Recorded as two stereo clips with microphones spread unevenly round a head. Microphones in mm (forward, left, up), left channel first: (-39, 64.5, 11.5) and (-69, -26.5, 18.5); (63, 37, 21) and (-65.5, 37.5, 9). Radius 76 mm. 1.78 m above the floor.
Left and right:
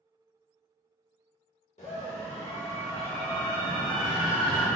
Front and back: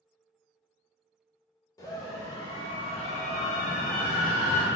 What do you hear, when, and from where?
1.8 s a scream: 60° left, 1.7 m; by 4.7 s 20° right, 1.1 m